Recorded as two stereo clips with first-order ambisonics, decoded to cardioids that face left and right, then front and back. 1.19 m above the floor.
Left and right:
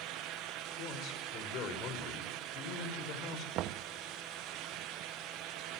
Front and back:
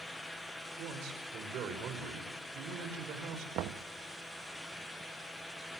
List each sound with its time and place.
0.8 s a man speaking: 135° left, 5.5 m
3.5 s knocking: 135° right, 0.9 m